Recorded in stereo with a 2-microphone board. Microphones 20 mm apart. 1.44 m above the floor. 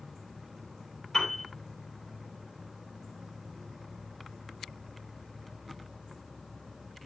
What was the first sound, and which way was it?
A piano, 35° left (ahead or behind).